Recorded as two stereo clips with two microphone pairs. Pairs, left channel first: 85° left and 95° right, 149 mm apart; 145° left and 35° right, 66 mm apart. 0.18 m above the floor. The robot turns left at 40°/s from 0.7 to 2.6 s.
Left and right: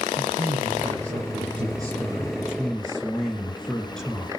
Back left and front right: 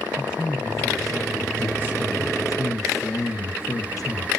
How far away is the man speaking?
About 3 m.